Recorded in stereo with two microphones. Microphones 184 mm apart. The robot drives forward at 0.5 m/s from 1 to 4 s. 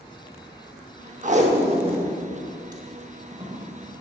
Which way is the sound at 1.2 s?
45° right (ahead or behind).